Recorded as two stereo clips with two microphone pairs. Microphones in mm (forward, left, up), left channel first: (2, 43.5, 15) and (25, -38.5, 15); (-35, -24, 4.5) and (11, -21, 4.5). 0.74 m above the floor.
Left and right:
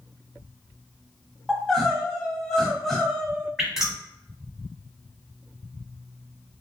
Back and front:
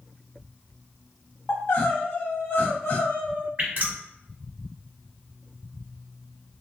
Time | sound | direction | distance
1.5 | crying | 170° right | 0.9 m
3.6 | dripping | 10° left | 1.4 m